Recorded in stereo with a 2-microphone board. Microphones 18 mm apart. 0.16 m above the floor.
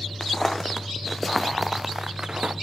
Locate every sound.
0.2 s footsteps: 20° left (ahead or behind), 1.6 m; by 2.5 s 50° right (ahead or behind), 0.7 m